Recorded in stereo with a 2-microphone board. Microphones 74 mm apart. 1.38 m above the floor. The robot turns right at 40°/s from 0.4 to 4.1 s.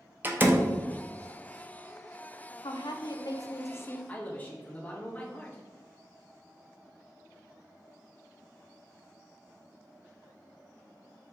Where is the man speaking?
20° left (ahead or behind), 1.4 m; by 5.6 s 25° left (ahead or behind), 1.4 m.